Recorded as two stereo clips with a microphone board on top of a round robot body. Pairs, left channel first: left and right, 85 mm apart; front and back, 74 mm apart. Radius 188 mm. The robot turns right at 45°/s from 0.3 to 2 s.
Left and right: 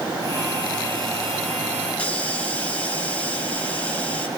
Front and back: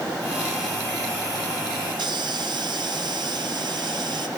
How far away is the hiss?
About 5.5 m.